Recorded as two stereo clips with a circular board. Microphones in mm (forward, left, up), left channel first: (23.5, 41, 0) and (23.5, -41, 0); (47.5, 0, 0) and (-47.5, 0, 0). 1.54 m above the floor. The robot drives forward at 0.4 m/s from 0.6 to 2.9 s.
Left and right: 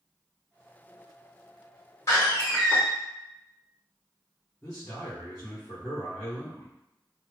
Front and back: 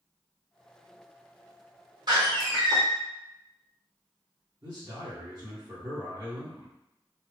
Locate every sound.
2.1 s a door slam: 145° left, 1.5 m; by 2.8 s 150° left, 1.7 m
4.6 s a man speaking: 150° left, 1.6 m